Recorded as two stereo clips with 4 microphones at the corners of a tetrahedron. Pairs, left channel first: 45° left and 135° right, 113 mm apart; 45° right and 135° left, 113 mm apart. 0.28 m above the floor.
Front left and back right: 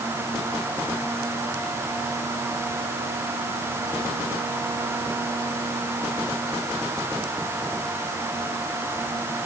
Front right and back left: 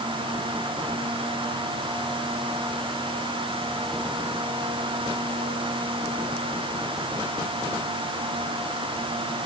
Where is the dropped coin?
I don't hear a dropped coin.